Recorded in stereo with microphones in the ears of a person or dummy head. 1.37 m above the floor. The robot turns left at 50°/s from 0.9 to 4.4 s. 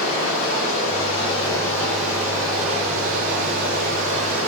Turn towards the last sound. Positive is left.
turn(degrees=-125)